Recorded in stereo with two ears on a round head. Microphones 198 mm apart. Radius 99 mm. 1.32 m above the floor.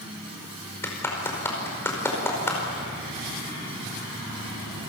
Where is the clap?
10° left (ahead or behind), 5 m.